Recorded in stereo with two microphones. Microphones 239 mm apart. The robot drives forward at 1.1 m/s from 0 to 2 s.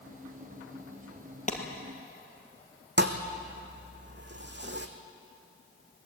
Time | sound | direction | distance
1.5 | a clap | 30° left (ahead or behind) | 2.5 m
3.0 | a thud | 50° right (ahead or behind) | 1.6 m